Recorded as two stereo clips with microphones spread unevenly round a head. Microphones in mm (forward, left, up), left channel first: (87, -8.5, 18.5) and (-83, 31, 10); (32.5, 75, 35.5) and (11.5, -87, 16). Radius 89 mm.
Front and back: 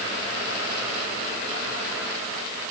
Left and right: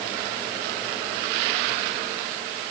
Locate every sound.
Only background noise.